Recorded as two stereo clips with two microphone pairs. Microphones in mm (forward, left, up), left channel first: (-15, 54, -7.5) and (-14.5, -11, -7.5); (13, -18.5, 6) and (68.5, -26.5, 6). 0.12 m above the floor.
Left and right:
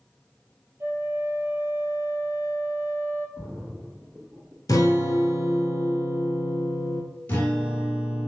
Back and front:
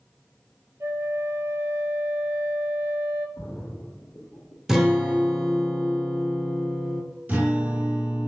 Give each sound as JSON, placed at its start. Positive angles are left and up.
{"t": 0.8, "sound": "a flute", "azimuth_deg": -45, "distance_m": 0.5}
{"t": 3.4, "sound": "a splash", "azimuth_deg": 180, "distance_m": 1.2}
{"t": 4.7, "sound": "a guitar", "azimuth_deg": 70, "distance_m": 1.1}
{"t": 7.3, "sound": "a guitar", "azimuth_deg": 35, "distance_m": 1.6}